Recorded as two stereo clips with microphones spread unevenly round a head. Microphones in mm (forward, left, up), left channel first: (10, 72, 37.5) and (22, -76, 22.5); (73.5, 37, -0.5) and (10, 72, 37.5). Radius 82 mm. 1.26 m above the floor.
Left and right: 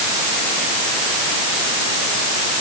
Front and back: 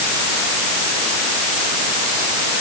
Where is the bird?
I don't hear a bird.